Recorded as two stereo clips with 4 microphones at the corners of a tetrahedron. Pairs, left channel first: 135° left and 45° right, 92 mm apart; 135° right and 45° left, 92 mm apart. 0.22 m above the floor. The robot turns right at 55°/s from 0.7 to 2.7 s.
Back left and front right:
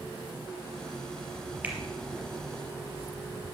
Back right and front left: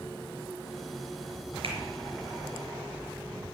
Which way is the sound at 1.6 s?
25° left.